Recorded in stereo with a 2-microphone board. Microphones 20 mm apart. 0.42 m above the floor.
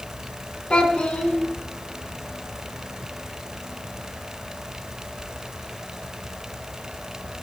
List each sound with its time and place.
0.7 s a child speaking: 60° left (ahead or behind), 4 m